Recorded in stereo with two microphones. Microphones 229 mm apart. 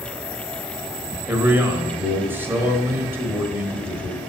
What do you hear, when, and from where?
1.3 s a man speaking: 10° right (ahead or behind), 1.3 m